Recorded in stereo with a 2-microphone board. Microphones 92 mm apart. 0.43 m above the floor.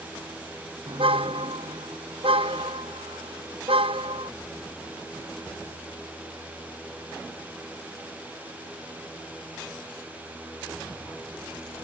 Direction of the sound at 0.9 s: 80° right.